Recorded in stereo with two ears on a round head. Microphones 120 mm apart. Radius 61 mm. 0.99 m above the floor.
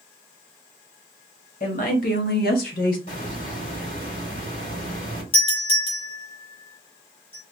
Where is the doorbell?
45° left (ahead or behind), 2 m.